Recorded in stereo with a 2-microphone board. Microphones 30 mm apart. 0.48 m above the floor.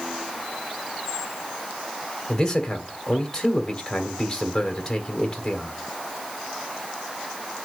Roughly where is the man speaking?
Centre.